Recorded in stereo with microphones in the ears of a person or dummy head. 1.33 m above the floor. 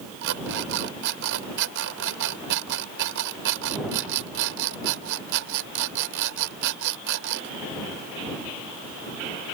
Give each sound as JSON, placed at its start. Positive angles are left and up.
{"t": 0.2, "sound": "an alarm clock", "side_deg": -60}